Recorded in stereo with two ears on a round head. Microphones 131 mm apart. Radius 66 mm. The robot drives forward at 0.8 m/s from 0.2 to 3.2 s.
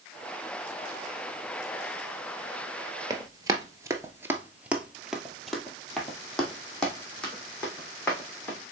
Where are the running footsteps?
25° right (ahead or behind), 1.1 m; by 8.6 s 10° left (ahead or behind), 3.5 m.